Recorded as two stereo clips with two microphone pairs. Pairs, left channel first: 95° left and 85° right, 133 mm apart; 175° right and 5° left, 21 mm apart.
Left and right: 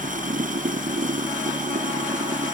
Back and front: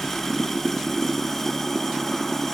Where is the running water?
105° right.